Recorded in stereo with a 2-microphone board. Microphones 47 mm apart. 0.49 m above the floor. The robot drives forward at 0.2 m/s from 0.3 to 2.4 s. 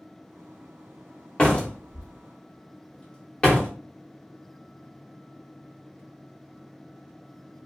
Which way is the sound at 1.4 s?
20° left (ahead or behind).